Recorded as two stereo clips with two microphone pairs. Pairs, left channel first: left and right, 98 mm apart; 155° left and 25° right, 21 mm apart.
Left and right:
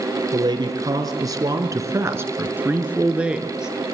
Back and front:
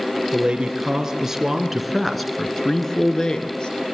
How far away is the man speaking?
About 2.5 m.